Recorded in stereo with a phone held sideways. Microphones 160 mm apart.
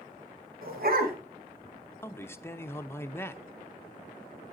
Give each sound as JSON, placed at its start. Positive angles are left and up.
{"t": 0.6, "sound": "a dog barking", "side_deg": -70, "distance_m": 2.5}
{"t": 2.0, "sound": "a man speaking", "side_deg": 15, "distance_m": 0.7}